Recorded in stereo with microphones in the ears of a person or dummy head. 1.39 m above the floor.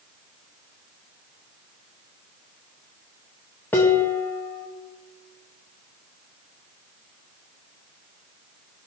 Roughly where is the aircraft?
I don't hear an aircraft.